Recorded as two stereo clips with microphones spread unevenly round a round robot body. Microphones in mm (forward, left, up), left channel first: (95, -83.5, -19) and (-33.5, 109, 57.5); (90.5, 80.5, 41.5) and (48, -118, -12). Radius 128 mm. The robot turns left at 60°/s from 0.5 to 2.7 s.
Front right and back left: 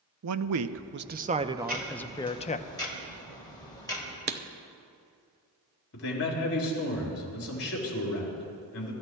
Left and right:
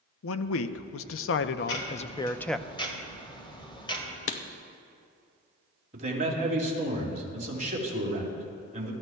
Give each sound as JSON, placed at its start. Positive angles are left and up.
{"t": 0.2, "sound": "a man speaking", "azimuth_deg": 100, "distance_m": 0.7}
{"t": 1.6, "sound": "ticking", "azimuth_deg": 70, "distance_m": 2.0}
{"t": 4.3, "sound": "writing", "azimuth_deg": 85, "distance_m": 0.8}
{"t": 5.9, "sound": "a man speaking", "azimuth_deg": -55, "distance_m": 4.0}